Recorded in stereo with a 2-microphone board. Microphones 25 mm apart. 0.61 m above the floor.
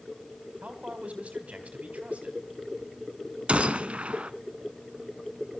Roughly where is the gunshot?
Right.